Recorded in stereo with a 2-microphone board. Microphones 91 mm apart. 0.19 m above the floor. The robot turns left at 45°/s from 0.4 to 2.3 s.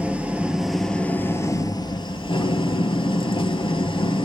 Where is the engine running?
165° right, 0.9 m; by 4.3 s 110° left, 0.9 m.